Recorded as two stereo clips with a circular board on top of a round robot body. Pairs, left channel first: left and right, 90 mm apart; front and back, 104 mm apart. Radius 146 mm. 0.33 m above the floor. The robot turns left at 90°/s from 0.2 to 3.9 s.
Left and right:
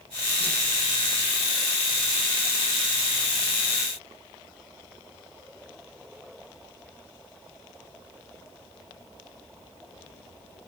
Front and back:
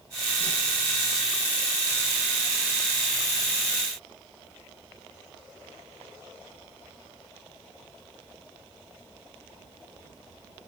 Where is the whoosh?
75° right, 9.5 m; by 0.6 s 95° right, 9.5 m.